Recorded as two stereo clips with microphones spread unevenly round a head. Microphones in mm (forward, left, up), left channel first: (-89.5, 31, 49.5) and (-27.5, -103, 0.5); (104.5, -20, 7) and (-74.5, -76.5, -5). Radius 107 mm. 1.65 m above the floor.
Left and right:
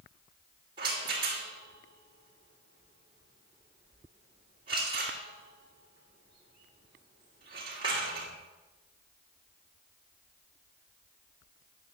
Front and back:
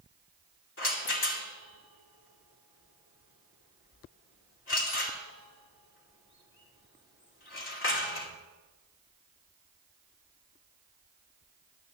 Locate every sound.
0.8 s a rattle: 10° left, 2.5 m